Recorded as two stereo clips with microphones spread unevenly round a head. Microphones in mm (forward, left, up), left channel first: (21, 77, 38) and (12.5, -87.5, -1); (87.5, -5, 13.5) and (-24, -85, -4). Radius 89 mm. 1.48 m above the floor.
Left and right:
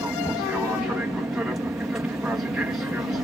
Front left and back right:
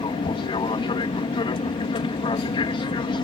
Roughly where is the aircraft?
Ahead.